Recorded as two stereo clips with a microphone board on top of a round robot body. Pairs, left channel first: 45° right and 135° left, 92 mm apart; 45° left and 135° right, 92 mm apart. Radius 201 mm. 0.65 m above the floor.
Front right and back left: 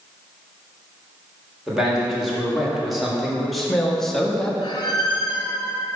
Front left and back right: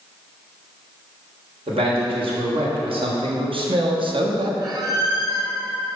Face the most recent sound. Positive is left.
turn(degrees=-90)